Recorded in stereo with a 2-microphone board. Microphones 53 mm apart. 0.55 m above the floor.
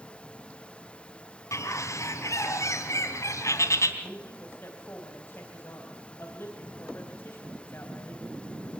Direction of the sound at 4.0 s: 45° left (ahead or behind).